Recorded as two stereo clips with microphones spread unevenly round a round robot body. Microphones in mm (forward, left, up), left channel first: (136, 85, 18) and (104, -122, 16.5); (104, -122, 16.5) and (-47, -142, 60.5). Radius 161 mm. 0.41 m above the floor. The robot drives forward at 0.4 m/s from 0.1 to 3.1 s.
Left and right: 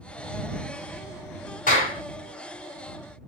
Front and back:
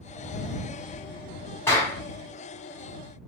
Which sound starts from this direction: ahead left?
A clap, at 1.7 s.